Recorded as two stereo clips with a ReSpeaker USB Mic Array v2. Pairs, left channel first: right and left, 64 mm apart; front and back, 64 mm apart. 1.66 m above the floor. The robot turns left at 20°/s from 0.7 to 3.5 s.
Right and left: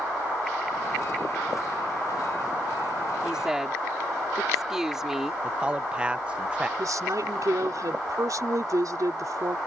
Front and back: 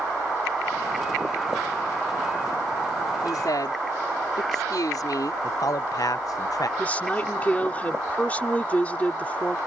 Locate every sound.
3.2 s a woman speaking: 15° left; by 5.3 s 10° left
5.4 s a man speaking: 20° left
6.8 s a woman speaking: 70° left